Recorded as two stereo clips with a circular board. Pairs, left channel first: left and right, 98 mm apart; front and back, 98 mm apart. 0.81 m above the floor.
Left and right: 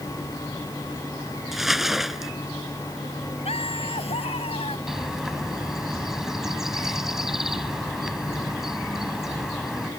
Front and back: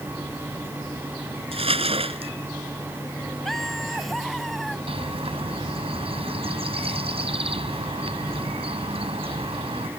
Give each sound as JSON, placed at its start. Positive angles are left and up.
{"t": 1.5, "sound": "crumpling", "azimuth_deg": 180}
{"t": 3.5, "sound": "laughter", "azimuth_deg": 85}
{"t": 4.9, "sound": "a bird", "azimuth_deg": -175}